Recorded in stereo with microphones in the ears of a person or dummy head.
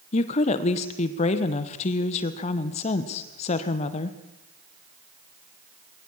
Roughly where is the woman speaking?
Left.